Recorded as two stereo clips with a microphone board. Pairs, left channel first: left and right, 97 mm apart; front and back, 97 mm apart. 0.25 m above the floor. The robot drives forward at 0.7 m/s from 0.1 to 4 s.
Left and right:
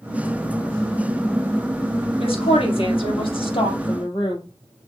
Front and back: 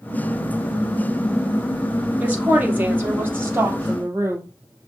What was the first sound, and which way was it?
A woman speaking, 105° left.